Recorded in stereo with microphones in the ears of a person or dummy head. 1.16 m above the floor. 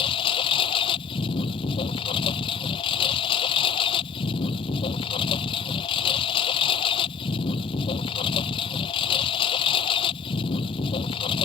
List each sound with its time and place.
0.0 s a lawn mower: 30° left (ahead or behind)